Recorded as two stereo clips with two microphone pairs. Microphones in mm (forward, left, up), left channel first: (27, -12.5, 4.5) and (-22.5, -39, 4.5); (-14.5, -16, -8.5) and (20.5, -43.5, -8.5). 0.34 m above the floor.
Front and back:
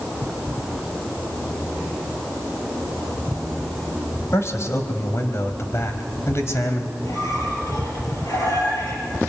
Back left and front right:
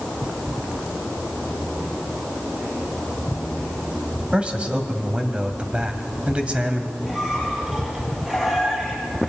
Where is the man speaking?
15° left, 2.0 m.